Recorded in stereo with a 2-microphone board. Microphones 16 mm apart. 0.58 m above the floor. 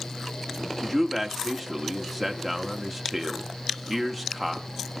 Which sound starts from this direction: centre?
A man speaking, at 0.8 s.